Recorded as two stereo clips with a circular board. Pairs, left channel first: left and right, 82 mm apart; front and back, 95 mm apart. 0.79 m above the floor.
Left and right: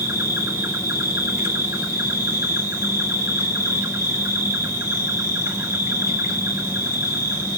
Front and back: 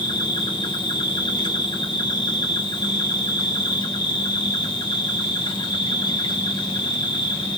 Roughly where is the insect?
Ahead right.